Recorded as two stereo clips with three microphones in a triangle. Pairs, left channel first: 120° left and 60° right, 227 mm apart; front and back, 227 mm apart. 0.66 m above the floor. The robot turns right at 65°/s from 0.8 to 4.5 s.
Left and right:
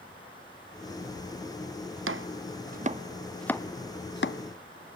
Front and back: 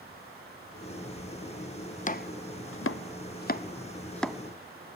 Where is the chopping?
55° right, 0.5 m; by 4.4 s 95° left, 0.5 m.